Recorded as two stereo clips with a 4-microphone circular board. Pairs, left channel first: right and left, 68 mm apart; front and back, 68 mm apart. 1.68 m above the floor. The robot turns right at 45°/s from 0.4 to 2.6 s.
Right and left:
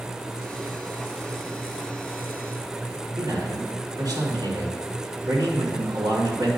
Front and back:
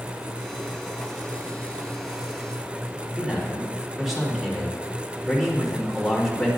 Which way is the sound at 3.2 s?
95° left.